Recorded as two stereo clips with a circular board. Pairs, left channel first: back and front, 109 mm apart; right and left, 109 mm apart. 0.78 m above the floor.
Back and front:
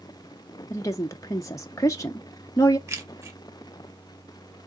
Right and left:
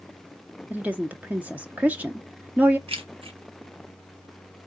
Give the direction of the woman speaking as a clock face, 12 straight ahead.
7 o'clock.